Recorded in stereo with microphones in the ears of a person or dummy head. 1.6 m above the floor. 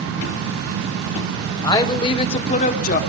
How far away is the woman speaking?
About 1.3 m.